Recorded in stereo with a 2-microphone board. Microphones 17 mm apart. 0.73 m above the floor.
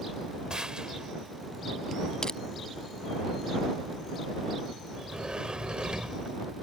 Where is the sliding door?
55° right (ahead or behind).